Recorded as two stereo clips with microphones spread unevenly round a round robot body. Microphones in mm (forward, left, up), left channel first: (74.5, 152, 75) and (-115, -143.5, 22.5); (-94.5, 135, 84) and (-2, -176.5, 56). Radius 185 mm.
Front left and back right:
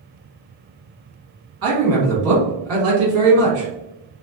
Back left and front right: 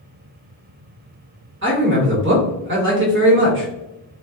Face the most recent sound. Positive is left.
turn(degrees=-105)